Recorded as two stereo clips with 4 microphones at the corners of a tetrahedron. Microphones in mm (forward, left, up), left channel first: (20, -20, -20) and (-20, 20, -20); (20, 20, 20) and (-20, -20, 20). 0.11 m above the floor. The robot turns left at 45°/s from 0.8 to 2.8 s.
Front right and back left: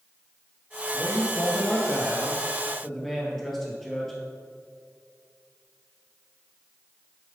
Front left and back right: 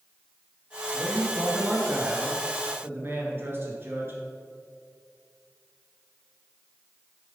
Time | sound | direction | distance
0.9 | a man speaking | 45° right | 1.9 m